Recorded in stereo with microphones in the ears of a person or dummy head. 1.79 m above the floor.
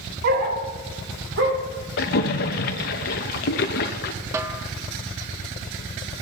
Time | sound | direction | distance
0.2 | a dog barking | 55° right (ahead or behind) | 3.5 m
2.0 | a splash | 50° left (ahead or behind) | 0.9 m
4.3 | a snare drum | 15° right (ahead or behind) | 0.9 m